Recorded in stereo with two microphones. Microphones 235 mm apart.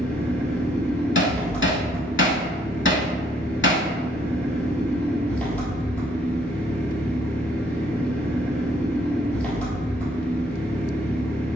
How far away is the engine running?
About 1.7 m.